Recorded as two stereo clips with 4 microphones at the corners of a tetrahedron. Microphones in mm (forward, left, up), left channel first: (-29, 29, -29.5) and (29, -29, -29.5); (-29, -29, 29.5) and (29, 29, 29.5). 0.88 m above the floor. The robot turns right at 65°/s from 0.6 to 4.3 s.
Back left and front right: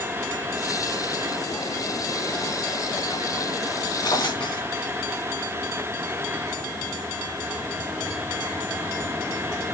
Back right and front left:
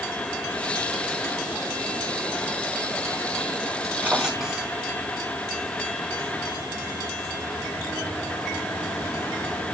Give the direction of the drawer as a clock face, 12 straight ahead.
8 o'clock.